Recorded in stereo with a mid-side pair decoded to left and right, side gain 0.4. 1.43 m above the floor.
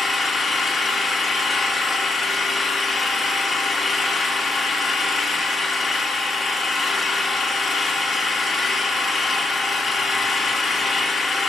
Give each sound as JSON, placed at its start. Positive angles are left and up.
{"t": 0.0, "sound": "an engine running", "azimuth_deg": 60, "distance_m": 2.0}